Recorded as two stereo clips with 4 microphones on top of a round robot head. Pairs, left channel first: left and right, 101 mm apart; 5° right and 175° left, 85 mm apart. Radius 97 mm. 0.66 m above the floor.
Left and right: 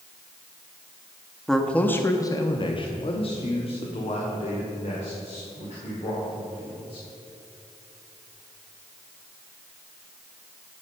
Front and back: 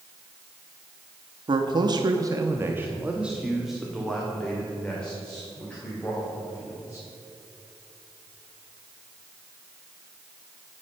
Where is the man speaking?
Straight behind, 1.0 m; by 7.0 s 70° left, 3.5 m.